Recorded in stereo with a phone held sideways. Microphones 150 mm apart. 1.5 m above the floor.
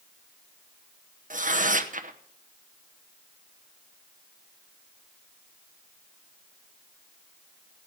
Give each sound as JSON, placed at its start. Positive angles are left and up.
{"t": 1.3, "sound": "tearing paper", "side_deg": -60, "distance_m": 0.9}